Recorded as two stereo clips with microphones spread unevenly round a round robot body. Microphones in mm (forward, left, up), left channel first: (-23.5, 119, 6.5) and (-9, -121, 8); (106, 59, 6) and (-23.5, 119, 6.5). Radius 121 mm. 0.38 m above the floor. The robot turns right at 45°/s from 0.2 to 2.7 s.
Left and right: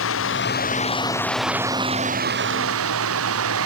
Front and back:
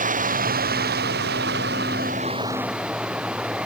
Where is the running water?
130° left; by 3.7 s 120° right.